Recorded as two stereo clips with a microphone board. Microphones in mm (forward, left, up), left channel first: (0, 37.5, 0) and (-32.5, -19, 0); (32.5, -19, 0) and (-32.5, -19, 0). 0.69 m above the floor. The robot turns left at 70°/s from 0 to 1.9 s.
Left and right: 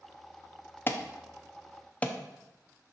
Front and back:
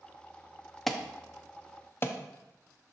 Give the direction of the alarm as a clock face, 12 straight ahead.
9 o'clock.